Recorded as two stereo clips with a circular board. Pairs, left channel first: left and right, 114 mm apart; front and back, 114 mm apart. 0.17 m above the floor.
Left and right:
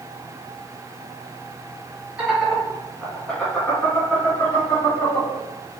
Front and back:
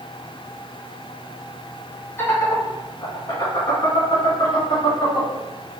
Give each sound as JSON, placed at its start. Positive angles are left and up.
{"t": 2.2, "sound": "laughter", "azimuth_deg": -25, "distance_m": 1.7}